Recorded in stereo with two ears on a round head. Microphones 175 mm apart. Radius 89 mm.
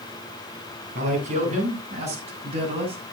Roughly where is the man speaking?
Right.